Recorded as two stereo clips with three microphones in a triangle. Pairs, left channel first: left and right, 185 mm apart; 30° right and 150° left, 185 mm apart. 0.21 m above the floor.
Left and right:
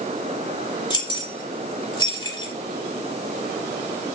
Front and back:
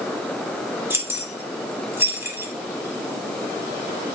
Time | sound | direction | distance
0.9 | keys jangling | 90° left | 0.9 m